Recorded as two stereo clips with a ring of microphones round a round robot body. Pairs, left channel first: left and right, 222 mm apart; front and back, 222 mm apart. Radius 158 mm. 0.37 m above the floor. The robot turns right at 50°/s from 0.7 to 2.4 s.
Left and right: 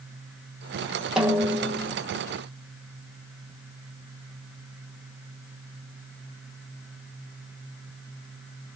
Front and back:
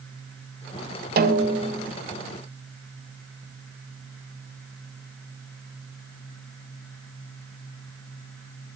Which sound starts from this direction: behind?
A snare drum, at 1.2 s.